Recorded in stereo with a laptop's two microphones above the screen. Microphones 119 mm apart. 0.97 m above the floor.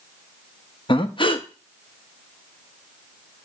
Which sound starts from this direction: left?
Breathing, at 0.9 s.